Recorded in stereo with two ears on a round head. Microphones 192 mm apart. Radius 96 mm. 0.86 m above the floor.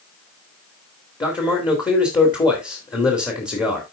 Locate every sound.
1.2 s a man speaking: 20° left (ahead or behind), 2 m